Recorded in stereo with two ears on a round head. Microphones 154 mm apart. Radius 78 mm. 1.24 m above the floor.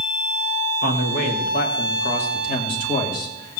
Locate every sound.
0.8 s a man speaking: 55° left (ahead or behind), 2.5 m; by 3.6 s 25° left (ahead or behind), 3 m